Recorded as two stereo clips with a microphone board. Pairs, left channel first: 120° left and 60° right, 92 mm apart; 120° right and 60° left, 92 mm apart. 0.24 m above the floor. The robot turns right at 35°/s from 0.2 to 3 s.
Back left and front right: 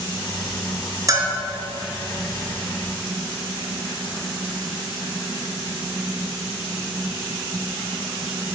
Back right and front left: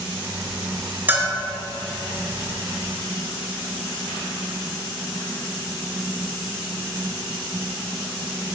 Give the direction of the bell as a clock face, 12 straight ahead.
12 o'clock.